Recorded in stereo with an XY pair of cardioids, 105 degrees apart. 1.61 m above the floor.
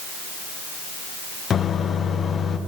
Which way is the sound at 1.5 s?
50° left.